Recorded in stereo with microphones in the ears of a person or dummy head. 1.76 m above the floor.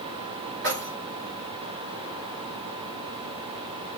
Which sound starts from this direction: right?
Keys jangling, at 0.6 s.